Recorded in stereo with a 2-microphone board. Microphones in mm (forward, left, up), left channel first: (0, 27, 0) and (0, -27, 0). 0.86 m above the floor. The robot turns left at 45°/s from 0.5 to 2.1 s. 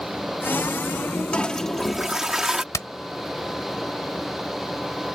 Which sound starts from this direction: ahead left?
A toilet flushing, at 1.3 s.